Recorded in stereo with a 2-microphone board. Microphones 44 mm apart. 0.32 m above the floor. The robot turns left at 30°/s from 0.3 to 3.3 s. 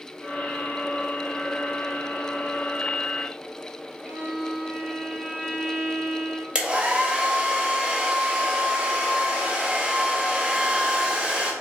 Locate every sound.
4.0 s a violin: 30° left (ahead or behind), 1.9 m
6.5 s a hair dryer: 25° right (ahead or behind), 0.7 m